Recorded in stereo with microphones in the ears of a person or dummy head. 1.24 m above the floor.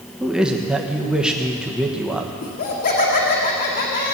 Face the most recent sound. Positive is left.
turn(degrees=45)  # may be behind; listen again after turning